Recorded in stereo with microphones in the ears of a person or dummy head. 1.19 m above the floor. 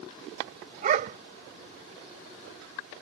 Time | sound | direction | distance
0.8 | a dog barking | 50° right (ahead or behind) | ?